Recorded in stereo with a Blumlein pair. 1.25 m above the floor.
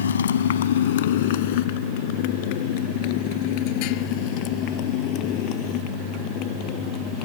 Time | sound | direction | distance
0.0 | a motorcycle | 65° left | ?